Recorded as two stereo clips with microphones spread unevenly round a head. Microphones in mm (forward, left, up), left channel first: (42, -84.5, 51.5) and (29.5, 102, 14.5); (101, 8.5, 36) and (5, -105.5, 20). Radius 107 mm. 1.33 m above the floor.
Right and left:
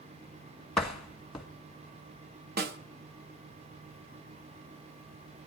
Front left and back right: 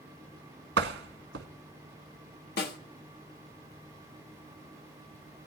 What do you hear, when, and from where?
0.8 s a door slam: 175° right, 1.3 m
2.6 s a snare drum: 50° left, 1.3 m